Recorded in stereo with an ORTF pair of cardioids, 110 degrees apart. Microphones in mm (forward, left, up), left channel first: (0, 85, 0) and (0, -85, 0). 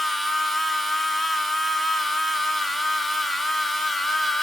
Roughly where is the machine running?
Ahead.